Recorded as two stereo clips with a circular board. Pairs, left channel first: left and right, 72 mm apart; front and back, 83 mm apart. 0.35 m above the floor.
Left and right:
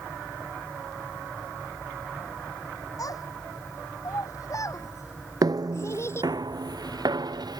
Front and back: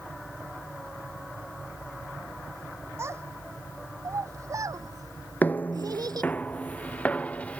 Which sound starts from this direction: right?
Footsteps, at 5.4 s.